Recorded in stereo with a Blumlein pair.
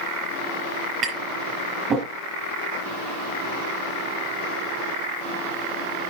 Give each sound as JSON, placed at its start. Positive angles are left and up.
{"t": 1.0, "sound": "tapping", "azimuth_deg": -20, "distance_m": 6.5}